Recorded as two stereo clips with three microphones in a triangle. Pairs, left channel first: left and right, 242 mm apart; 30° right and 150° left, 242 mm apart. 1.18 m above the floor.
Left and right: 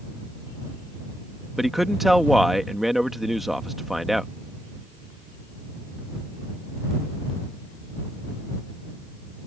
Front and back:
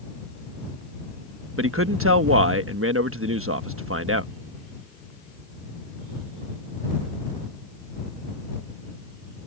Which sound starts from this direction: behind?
A man speaking, at 1.6 s.